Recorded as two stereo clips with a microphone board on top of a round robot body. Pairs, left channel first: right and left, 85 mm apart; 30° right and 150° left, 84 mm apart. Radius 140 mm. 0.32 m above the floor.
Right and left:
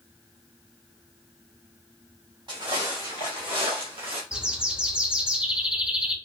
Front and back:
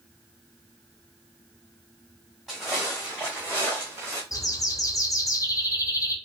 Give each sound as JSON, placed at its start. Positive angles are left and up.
{"t": 2.5, "sound": "footsteps", "azimuth_deg": 60, "distance_m": 2.0}
{"t": 4.3, "sound": "a bird", "azimuth_deg": 15, "distance_m": 0.8}